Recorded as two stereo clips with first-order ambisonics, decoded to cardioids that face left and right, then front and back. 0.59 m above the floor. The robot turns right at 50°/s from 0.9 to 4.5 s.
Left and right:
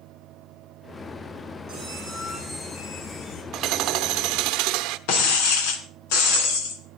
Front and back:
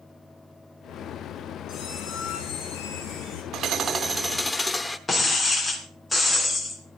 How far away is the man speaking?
No man speaking in this recording.